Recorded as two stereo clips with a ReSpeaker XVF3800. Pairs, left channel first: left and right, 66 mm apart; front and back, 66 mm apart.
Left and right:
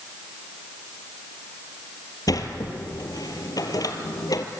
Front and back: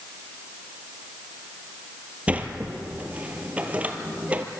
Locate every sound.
2.3 s a sliding door: 110° left, 1.8 m